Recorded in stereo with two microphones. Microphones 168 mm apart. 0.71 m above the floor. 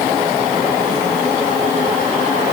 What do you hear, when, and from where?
Only background noise.